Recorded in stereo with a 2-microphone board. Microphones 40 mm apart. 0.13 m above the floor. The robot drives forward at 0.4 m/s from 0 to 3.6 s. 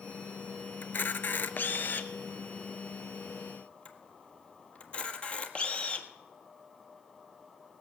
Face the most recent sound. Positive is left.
turn(degrees=30)  # may be behind; listen again after turning